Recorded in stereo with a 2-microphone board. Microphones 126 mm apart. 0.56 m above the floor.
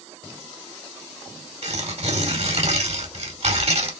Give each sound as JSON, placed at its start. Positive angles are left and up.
{"t": 1.6, "sound": "tearing paper", "side_deg": -55, "distance_m": 2.0}